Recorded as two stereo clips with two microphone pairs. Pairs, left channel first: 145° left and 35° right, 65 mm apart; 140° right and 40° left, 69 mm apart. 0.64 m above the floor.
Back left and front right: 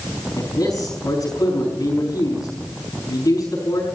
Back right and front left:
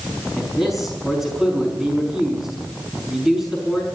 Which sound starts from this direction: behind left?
A man speaking, at 0.4 s.